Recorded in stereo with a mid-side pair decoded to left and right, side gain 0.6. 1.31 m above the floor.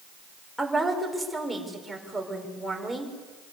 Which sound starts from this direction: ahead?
A woman speaking, at 0.6 s.